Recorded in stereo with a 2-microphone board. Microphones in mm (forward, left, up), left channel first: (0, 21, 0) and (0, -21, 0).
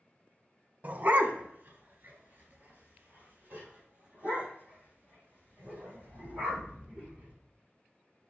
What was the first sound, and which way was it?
A dog barking, 40° right (ahead or behind).